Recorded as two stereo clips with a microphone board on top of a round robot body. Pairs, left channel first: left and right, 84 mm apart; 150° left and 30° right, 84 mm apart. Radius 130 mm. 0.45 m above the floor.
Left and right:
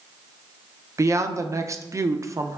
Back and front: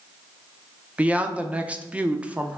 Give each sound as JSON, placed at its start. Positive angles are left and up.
{"t": 1.0, "sound": "a woman speaking", "azimuth_deg": -95, "distance_m": 0.8}